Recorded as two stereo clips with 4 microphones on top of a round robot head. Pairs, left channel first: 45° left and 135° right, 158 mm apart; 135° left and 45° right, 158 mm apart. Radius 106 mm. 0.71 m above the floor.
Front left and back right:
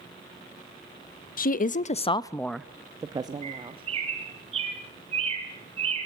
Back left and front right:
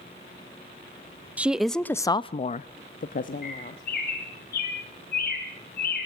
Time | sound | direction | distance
1.4 | a woman speaking | 35° left | 0.8 m
3.4 | a bird | 170° left | 3 m